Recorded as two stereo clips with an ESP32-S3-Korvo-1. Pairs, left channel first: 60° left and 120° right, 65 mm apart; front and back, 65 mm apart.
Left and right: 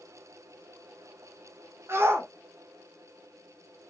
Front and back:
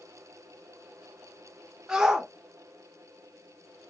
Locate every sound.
1.9 s a shout: 105° right, 1.0 m